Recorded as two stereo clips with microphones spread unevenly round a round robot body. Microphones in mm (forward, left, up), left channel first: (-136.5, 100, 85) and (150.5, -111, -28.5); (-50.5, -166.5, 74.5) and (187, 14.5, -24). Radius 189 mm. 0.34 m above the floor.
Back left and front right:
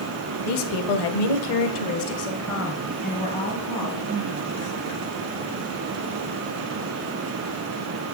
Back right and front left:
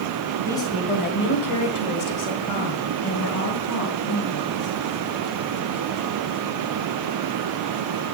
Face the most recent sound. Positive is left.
turn(degrees=-130)